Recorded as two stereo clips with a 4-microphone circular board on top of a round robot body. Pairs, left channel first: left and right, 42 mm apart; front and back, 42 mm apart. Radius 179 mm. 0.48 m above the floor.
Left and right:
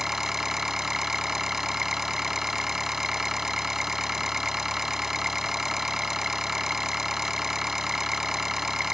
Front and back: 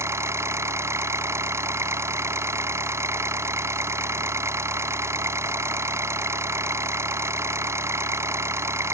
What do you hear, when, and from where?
0.0 s an engine running: 170° right